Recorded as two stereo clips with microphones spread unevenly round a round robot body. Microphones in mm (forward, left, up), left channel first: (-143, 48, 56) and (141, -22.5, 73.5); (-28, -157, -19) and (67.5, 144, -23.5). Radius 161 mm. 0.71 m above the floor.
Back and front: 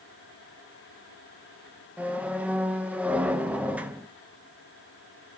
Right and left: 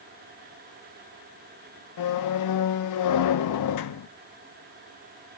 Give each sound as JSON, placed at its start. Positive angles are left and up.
{"t": 2.0, "sound": "a squeak", "azimuth_deg": -100, "distance_m": 0.6}